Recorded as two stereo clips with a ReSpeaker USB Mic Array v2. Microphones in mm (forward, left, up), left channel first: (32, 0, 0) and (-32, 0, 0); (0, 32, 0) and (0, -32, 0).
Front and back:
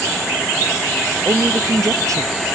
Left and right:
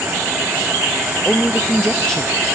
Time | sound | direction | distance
1.2 | a woman speaking | 165° left | 0.6 m